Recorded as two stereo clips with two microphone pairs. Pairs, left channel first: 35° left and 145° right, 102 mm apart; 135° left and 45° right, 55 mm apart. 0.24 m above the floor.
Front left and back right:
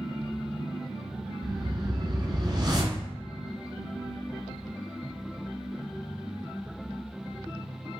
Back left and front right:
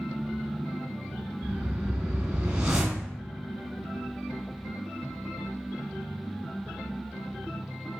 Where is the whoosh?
115° right, 1.9 m.